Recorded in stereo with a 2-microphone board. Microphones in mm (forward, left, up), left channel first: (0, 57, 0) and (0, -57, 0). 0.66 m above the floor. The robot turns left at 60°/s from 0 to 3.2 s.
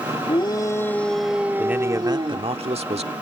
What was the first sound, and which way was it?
A shout, 55° left.